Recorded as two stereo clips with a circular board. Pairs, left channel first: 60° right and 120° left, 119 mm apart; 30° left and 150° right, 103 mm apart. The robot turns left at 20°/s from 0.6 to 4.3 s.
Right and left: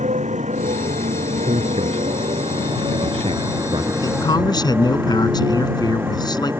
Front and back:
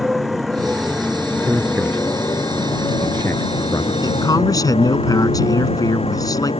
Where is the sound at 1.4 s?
135° left; by 3.9 s 85° left.